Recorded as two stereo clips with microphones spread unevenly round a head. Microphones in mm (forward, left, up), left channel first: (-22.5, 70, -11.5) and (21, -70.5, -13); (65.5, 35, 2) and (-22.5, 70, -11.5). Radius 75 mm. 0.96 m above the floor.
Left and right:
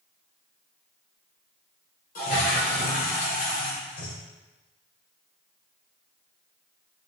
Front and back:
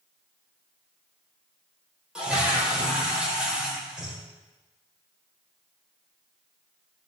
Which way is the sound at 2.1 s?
75° left.